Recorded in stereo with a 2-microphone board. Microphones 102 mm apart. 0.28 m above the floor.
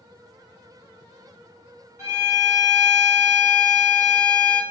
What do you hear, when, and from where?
2.0 s a violin: 30° right (ahead or behind), 1.9 m